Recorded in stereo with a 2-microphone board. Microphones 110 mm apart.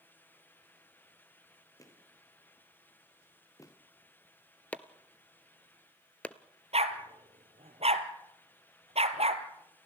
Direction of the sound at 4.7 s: 15° left (ahead or behind).